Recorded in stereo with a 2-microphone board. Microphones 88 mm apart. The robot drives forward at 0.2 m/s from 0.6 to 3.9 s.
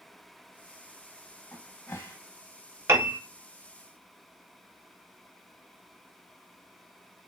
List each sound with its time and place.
1.5 s a cupboard door: 30° left (ahead or behind), 0.8 m; by 2.2 s 35° left (ahead or behind), 0.7 m
2.9 s a piano: 35° right (ahead or behind), 0.7 m